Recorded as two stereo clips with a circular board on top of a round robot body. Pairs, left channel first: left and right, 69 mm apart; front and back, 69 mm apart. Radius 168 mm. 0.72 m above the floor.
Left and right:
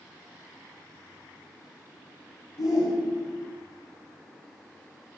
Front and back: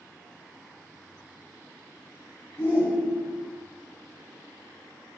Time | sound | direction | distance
2.6 | a shout | 55° left | 8 m